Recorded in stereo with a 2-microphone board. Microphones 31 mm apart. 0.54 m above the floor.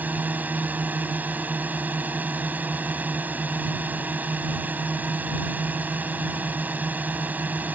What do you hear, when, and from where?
0.0 s a drone: 70° right (ahead or behind)